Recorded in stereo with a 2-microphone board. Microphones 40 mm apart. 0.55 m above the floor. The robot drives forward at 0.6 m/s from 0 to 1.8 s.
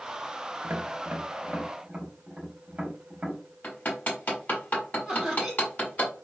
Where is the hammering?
45° left (ahead or behind), 1.3 m.